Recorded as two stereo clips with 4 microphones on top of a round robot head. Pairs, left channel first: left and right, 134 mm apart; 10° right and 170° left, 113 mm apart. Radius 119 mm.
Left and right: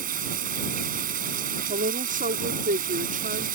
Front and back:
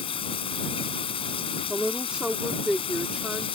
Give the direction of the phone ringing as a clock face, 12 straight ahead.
I don't hear a phone ringing.